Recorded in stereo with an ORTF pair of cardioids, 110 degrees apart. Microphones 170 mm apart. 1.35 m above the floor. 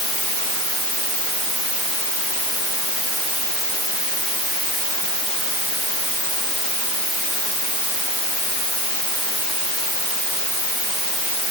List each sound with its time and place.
Only background noise.